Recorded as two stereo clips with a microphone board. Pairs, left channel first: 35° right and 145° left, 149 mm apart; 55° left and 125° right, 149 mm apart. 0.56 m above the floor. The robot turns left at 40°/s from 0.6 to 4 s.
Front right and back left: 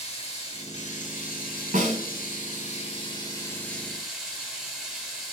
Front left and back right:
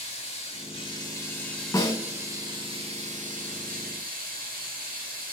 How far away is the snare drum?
About 1.0 m.